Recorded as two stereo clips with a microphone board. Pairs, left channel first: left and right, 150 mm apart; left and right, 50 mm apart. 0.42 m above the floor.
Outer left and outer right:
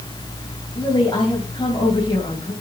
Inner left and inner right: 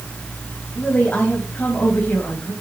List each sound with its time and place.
0.8 s a woman speaking: 35° left (ahead or behind), 3 m